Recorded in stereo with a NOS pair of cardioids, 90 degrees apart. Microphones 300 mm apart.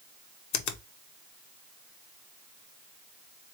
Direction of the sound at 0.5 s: 65° left.